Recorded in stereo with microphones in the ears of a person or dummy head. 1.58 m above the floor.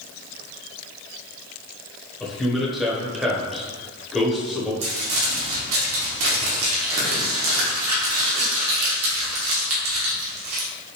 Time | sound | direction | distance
2.2 | a man speaking | 5° left (ahead or behind) | 1.1 m
4.8 | crumpling | 80° right | 1.6 m